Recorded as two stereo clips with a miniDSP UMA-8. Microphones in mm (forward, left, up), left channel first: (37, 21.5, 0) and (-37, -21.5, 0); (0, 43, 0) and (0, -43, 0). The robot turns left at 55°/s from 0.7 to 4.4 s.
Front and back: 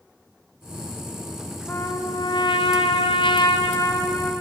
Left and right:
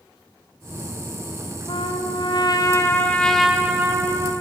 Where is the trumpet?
95° left, 3.5 m; by 4.3 s 50° right, 3.5 m.